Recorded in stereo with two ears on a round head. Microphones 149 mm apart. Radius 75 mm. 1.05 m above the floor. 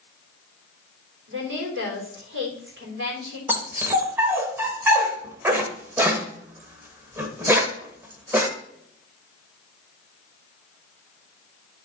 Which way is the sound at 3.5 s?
15° right (ahead or behind).